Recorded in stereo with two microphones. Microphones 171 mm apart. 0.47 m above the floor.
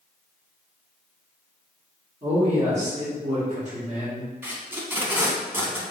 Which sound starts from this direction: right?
A man speaking, at 2.2 s.